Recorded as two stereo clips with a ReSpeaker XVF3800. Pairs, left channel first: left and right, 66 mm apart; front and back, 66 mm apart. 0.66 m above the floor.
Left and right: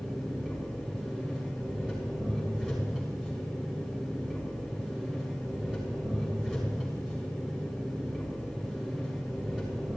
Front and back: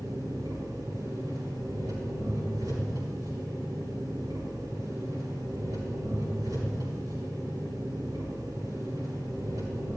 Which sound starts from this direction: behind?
An engine running, at 0.0 s.